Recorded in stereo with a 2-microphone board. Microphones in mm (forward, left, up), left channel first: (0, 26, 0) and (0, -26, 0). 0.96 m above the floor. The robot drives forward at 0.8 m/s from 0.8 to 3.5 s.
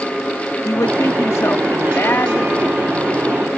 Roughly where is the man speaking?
Left.